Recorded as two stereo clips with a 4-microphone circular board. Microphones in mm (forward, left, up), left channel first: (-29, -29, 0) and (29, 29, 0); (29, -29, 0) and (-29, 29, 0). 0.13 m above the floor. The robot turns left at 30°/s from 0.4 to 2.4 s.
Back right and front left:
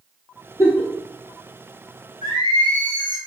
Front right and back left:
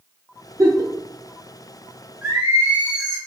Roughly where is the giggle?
Behind.